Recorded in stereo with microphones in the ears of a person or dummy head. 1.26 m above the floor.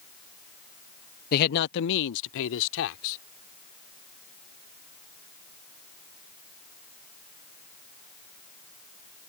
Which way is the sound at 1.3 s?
50° left (ahead or behind).